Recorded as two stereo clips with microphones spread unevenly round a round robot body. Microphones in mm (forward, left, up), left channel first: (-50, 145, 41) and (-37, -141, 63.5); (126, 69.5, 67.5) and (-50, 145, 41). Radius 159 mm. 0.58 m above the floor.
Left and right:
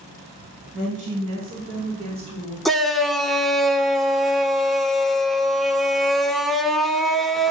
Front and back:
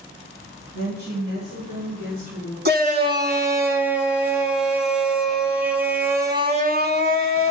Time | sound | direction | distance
0.7 | a woman speaking | 145° right | 5.5 m
2.6 | a shout | straight behind | 1.8 m